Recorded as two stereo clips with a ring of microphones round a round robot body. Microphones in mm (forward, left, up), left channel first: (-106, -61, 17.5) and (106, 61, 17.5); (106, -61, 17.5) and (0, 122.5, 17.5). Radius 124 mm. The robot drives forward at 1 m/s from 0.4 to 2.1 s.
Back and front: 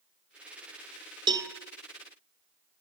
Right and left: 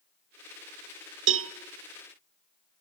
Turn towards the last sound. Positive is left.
turn(degrees=135)